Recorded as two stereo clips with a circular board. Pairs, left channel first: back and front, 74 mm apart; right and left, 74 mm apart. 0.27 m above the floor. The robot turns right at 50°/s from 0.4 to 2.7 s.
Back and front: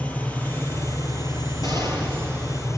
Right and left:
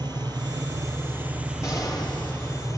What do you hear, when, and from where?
0.0 s an engine running: 110° left, 2.5 m; by 2.8 s 135° right, 2.5 m
1.6 s an explosion: 140° right, 6 m; by 2.5 s 95° right, 6 m